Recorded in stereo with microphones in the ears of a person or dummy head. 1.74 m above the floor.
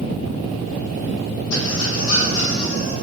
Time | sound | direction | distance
1.5 | a squeak | 70° left (ahead or behind) | 2.5 m